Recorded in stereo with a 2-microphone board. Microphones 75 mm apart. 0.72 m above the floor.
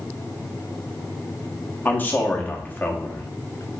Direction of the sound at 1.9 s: 25° left (ahead or behind).